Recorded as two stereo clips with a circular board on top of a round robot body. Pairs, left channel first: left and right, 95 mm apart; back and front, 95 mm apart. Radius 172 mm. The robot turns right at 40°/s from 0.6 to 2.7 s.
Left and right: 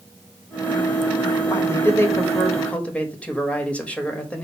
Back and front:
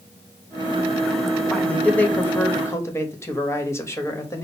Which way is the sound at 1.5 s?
105° left.